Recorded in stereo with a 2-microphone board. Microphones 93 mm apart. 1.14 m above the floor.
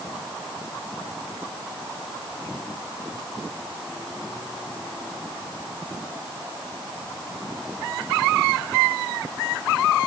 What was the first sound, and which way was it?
Only background noise.